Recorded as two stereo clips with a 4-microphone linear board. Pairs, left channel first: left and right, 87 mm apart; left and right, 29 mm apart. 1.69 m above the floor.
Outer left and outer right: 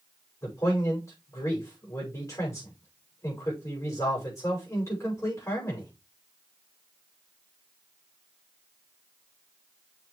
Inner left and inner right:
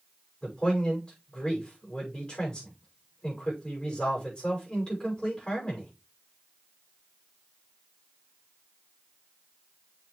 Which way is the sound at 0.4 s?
35° left (ahead or behind).